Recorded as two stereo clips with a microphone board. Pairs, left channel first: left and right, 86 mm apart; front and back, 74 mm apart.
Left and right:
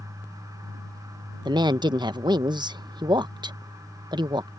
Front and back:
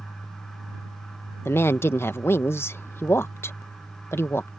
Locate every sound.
1.4 s a woman speaking: 60° right